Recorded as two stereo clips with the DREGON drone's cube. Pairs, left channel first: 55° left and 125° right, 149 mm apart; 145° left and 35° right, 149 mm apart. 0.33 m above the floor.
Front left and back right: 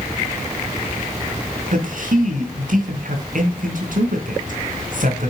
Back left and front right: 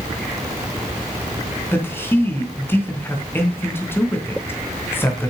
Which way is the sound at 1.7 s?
140° right.